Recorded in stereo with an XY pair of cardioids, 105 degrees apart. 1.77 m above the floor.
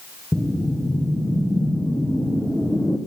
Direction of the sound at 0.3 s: 5° left.